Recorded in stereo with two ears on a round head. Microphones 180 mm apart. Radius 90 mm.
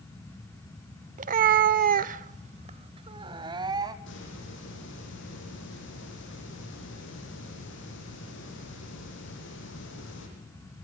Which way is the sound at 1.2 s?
40° right (ahead or behind).